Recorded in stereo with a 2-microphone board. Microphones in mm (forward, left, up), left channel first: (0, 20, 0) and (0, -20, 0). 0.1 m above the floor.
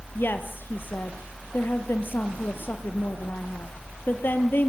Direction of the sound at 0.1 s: 55° left (ahead or behind).